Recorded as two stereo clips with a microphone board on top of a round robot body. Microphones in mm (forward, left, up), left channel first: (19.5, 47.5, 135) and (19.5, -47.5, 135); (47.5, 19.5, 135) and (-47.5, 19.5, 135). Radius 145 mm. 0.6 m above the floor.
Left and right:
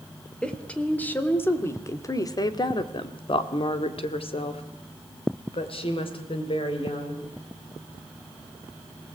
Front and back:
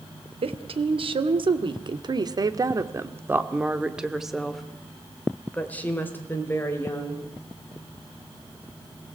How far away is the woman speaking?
About 2.5 m.